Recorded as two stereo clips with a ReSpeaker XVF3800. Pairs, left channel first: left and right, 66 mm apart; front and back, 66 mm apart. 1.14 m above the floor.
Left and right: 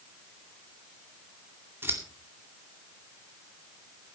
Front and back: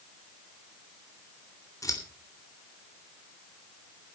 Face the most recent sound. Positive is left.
turn(degrees=-35)